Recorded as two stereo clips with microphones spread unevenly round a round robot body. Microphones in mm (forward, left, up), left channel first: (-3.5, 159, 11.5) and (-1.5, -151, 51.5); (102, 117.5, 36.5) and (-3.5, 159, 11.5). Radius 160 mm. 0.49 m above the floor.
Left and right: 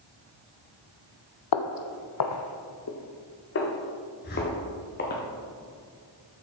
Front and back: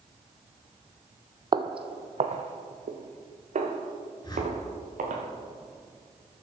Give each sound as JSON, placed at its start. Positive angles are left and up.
{"t": 1.5, "sound": "footsteps", "azimuth_deg": 105, "distance_m": 0.8}
{"t": 4.2, "sound": "a whoosh", "azimuth_deg": 30, "distance_m": 4.0}